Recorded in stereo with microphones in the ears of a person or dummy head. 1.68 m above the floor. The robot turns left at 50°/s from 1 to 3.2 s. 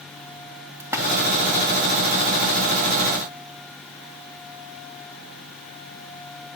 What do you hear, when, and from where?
0.8 s a splash: 15° right (ahead or behind), 1.6 m